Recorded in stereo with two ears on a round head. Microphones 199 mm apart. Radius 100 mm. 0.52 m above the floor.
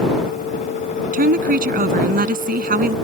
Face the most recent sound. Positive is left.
turn(degrees=-45)  # may be behind; listen again after turning